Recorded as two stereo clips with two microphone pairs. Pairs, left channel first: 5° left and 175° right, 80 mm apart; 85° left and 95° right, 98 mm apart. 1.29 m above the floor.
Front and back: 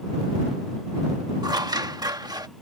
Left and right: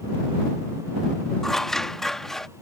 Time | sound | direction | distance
1.4 | scissors | 175° left | ?